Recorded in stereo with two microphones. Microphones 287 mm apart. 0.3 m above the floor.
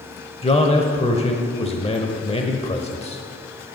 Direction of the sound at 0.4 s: 20° left (ahead or behind).